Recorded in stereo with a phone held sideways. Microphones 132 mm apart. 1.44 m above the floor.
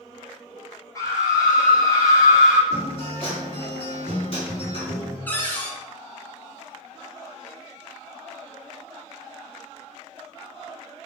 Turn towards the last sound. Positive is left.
turn(degrees=10)  # may be behind; listen again after turning